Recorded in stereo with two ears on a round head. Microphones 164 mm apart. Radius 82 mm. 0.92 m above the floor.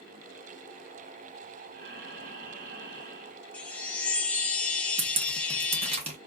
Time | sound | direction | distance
1.7 | breathing | 60° right (ahead or behind) | 1.4 m
3.5 | a chime | 5° left (ahead or behind) | 0.6 m
5.0 | dripping | 35° right (ahead or behind) | 0.9 m